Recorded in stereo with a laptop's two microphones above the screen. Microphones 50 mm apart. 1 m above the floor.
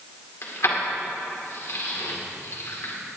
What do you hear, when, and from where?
0.4 s keys jangling: 60° left (ahead or behind), 2 m